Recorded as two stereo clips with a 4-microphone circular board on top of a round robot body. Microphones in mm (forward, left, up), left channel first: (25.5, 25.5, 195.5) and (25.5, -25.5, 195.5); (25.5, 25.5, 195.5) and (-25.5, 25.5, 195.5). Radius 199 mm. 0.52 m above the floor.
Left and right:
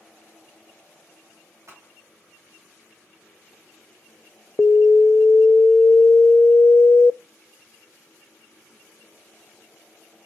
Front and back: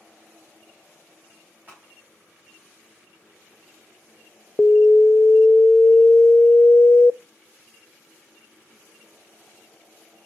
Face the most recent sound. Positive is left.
turn(degrees=55)